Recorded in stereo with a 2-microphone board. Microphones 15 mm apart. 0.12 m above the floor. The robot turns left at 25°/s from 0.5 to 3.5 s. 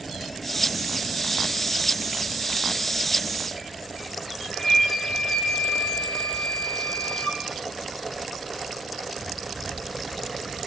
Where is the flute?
60° left (ahead or behind), 6.5 m.